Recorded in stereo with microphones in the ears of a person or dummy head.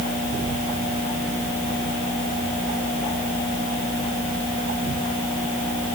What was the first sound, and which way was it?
Only background noise.